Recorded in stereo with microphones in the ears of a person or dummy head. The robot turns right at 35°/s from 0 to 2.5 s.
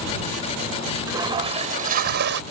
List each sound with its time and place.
1.1 s a toilet flushing: 160° right; by 2.4 s 115° right